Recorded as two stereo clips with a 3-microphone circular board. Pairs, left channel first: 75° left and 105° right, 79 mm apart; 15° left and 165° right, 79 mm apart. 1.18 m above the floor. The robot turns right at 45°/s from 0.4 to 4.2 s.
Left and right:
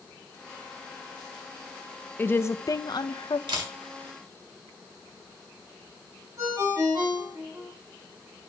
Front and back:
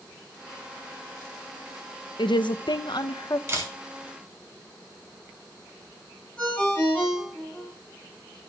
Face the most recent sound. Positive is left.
turn(degrees=-60)